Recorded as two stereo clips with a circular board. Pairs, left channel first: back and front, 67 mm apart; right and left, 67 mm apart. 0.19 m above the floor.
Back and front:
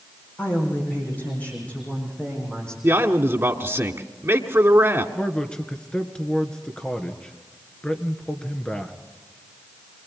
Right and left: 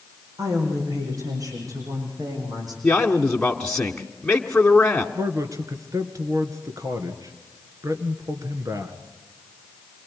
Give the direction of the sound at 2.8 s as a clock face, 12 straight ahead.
1 o'clock.